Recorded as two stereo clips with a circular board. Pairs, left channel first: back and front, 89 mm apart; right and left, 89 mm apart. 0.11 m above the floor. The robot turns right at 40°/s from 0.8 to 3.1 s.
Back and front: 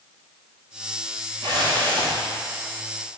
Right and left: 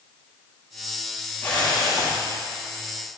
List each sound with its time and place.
1.4 s a whoosh: 20° right, 7 m; by 2.2 s 10° left, 7 m